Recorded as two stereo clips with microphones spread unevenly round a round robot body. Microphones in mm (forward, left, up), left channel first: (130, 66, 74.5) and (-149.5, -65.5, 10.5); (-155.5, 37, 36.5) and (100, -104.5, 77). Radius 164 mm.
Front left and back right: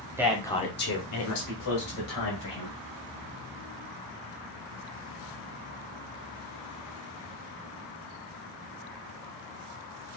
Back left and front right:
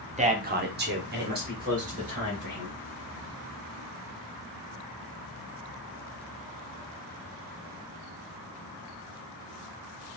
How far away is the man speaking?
About 1.3 m.